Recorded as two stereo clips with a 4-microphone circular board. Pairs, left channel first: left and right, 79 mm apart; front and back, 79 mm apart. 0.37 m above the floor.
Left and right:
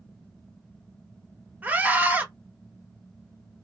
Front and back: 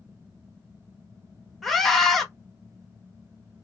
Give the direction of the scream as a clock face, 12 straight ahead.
3 o'clock.